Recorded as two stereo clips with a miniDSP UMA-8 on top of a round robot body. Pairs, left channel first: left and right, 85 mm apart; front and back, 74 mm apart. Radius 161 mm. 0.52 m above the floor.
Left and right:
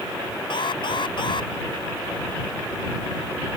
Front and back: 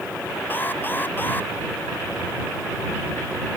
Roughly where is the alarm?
Ahead left.